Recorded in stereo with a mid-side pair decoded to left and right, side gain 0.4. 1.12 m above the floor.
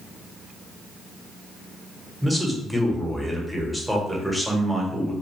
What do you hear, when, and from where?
2.2 s a man speaking: straight ahead, 1.0 m